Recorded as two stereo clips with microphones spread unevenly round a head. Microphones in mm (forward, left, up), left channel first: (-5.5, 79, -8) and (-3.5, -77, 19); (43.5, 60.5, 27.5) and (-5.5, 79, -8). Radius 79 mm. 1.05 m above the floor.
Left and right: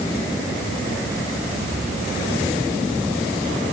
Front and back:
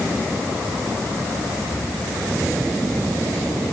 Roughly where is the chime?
No chime in this recording.